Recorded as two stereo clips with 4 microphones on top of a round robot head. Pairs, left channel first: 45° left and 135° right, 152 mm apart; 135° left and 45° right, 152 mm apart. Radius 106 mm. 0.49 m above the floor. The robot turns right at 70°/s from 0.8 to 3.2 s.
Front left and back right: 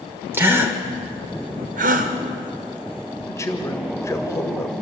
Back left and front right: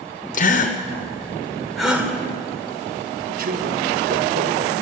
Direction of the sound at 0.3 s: 155° left.